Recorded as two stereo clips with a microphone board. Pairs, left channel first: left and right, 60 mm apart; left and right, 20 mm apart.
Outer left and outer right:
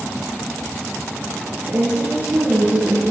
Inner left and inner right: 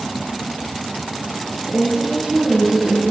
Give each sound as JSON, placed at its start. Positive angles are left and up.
{"t": 1.6, "sound": "a woman speaking", "side_deg": -60, "distance_m": 3.5}